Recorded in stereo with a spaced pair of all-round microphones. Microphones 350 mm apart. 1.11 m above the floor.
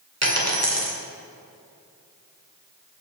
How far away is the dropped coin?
About 2 m.